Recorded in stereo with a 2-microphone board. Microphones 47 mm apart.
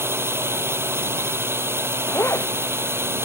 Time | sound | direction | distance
0.0 | a drone | 65° right (ahead or behind) | ?
2.0 | a zipper | 80° left | ?